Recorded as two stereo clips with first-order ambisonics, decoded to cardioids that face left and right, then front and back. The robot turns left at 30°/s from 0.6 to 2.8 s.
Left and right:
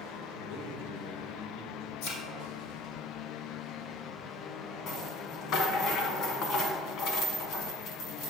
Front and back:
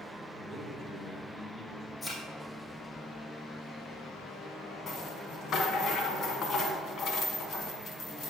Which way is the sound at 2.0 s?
85° left.